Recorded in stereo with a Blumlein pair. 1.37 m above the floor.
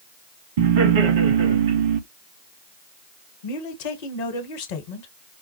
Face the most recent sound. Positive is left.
turn(degrees=50)